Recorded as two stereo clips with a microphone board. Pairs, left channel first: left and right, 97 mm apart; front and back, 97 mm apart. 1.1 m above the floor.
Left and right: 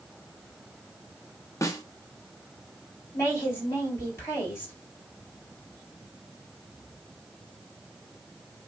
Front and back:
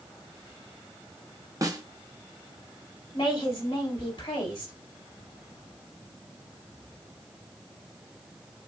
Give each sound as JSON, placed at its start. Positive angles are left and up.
{"t": 1.6, "sound": "a snare drum", "azimuth_deg": 140, "distance_m": 0.7}
{"t": 3.1, "sound": "a woman speaking", "azimuth_deg": 30, "distance_m": 3.0}